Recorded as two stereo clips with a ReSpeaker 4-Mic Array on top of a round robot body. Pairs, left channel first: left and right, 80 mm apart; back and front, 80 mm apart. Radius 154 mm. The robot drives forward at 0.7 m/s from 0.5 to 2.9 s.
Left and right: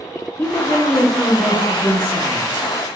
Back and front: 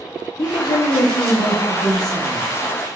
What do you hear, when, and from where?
0.4 s a woman speaking: 155° left, 0.6 m; by 3.0 s 175° left, 2 m